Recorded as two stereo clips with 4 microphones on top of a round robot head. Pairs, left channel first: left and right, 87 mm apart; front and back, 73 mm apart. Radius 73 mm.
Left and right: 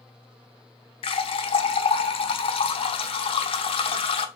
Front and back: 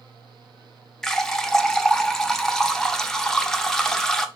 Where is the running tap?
85° left, 0.6 m.